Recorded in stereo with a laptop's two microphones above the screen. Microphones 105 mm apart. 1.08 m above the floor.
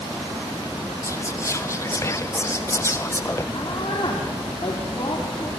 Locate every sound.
1.0 s whispering: 30° left (ahead or behind), 0.5 m
3.5 s a woman speaking: 55° left (ahead or behind), 2.5 m